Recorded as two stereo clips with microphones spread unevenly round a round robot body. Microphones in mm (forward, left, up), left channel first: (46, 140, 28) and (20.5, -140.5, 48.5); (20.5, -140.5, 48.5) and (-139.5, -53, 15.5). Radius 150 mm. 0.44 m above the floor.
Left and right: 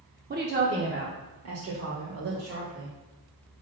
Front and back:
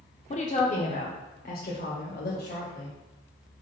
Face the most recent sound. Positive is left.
turn(degrees=-65)